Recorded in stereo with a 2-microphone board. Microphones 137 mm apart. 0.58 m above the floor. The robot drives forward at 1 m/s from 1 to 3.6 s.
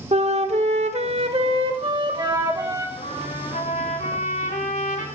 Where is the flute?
55° right (ahead or behind), 1.2 m; by 2.9 s 25° right (ahead or behind), 2.5 m.